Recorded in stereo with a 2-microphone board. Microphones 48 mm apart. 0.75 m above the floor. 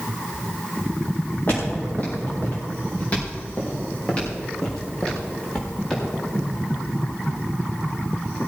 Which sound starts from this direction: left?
Footsteps, at 1.5 s.